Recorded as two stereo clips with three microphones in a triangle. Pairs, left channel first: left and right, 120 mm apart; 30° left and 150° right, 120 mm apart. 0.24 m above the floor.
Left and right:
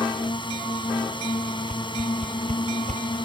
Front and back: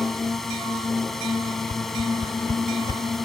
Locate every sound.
0.0 s a drone: 115° left
1.7 s a whoosh: 100° right